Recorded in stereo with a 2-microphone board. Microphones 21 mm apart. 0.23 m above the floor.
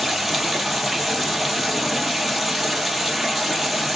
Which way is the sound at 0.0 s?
5° right (ahead or behind).